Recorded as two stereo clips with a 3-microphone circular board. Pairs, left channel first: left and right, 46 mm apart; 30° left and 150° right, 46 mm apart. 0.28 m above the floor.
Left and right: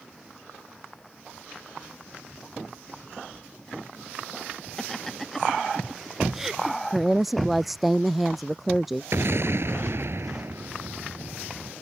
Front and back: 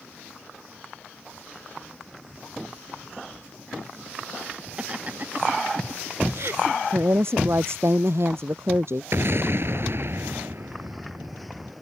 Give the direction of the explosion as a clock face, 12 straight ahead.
4 o'clock.